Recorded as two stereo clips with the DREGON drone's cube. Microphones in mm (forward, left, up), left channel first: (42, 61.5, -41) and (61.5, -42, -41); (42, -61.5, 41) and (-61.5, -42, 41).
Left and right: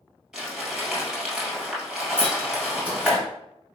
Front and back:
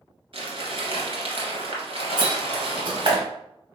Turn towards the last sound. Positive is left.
turn(degrees=-155)